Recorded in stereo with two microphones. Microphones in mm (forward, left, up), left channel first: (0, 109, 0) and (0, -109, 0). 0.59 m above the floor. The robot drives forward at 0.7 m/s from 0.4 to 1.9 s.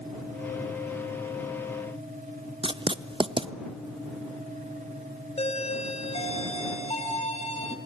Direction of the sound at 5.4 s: 30° left (ahead or behind).